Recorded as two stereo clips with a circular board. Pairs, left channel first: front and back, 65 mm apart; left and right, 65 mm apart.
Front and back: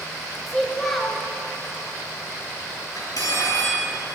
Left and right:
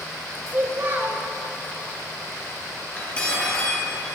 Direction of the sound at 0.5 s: 80° right.